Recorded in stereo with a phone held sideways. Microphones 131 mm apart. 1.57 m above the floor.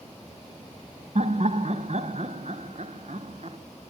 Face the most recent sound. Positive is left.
turn(degrees=-60)  # may be behind; listen again after turning